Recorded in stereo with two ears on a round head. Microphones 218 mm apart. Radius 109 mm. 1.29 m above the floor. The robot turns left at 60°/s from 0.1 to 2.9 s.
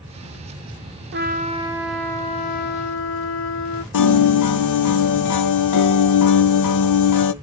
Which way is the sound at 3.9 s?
85° left.